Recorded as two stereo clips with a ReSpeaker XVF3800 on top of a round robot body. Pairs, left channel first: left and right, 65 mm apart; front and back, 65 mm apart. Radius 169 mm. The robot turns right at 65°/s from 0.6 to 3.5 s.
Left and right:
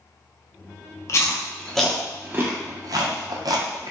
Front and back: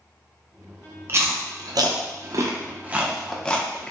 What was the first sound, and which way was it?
Chewing, 130° left.